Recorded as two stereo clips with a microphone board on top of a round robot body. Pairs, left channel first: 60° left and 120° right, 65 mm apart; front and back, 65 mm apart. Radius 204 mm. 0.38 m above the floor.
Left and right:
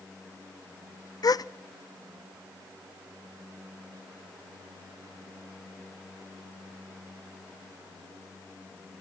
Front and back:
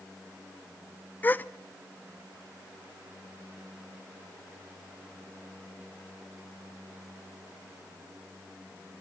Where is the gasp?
60° left, 0.6 m.